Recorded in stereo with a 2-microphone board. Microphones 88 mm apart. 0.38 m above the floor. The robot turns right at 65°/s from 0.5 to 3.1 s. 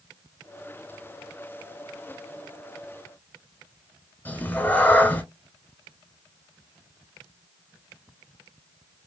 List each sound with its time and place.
4.2 s a cat meowing: 20° left (ahead or behind), 0.6 m